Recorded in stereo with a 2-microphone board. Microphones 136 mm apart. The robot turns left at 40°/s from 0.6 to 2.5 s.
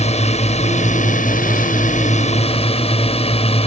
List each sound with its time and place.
0.0 s a drone: 125° left; by 3.7 s 50° left